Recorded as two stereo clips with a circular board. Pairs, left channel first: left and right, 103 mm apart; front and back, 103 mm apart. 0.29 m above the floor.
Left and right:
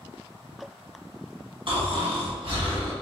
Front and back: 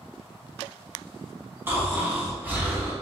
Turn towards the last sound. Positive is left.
turn(degrees=-115)